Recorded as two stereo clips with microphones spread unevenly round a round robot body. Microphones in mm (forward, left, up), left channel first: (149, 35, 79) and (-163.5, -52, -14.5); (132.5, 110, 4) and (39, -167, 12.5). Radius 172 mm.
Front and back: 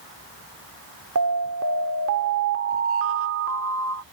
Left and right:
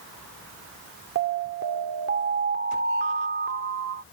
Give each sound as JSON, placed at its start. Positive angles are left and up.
{"t": 1.1, "sound": "an alarm", "azimuth_deg": -160}